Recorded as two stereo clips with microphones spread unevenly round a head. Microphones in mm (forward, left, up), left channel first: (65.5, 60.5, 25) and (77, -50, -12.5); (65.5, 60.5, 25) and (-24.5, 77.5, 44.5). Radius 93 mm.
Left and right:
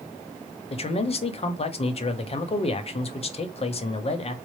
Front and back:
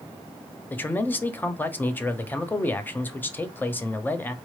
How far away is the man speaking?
About 0.8 m.